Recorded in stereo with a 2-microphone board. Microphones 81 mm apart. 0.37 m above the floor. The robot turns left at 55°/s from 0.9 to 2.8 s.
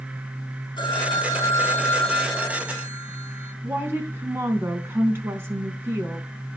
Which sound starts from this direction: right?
A woman speaking, at 3.6 s.